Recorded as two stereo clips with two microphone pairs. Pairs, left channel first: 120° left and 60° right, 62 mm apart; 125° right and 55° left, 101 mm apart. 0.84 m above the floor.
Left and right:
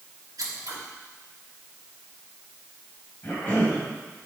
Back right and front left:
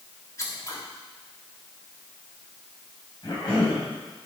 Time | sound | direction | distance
0.4 | scissors | 65° right | 1.8 m
3.2 | a cough | straight behind | 4 m